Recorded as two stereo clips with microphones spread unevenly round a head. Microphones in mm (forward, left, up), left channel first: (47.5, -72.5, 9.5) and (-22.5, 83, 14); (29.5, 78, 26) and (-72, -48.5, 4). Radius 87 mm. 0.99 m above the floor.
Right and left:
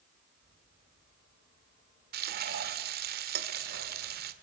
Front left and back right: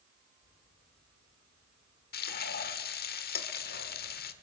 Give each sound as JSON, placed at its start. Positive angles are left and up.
{"t": 2.1, "sound": "frying", "azimuth_deg": 80, "distance_m": 2.0}